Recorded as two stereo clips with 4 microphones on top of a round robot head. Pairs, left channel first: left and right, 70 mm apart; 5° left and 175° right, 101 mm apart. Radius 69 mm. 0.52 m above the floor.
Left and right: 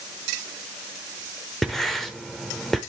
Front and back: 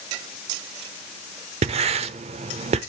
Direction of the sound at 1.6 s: 175° left.